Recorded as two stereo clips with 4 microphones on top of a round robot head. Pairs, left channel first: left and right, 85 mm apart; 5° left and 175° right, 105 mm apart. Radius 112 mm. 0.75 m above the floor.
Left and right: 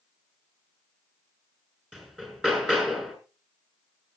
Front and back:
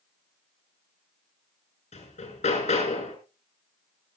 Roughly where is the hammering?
Ahead.